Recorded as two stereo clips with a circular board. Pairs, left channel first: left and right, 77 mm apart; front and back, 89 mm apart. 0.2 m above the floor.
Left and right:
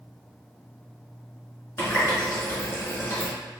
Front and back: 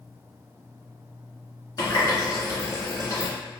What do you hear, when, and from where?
1.8 s a running tap: 35° left, 1.5 m